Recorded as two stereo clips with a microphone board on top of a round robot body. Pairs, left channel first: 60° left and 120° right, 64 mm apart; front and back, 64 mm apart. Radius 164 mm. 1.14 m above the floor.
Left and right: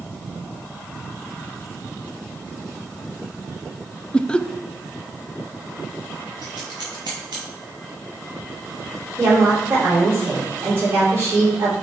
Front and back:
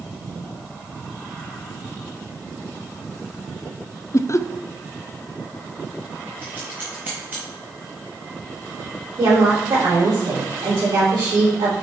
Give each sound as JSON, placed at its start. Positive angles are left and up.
{"t": 4.1, "sound": "laughter", "azimuth_deg": -10, "distance_m": 0.6}
{"t": 6.4, "sound": "scissors", "azimuth_deg": -120, "distance_m": 0.5}
{"t": 9.2, "sound": "a woman speaking", "azimuth_deg": -170, "distance_m": 3.5}